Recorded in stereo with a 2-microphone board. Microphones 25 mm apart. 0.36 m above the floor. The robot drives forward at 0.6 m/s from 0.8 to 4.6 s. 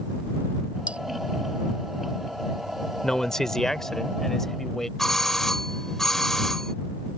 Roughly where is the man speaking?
Centre.